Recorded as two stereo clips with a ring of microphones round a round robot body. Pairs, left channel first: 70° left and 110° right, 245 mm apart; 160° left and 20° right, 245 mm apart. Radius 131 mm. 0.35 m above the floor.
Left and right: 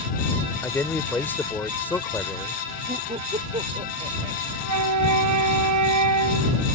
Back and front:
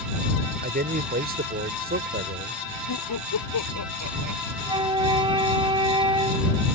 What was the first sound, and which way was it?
A man speaking, 10° right.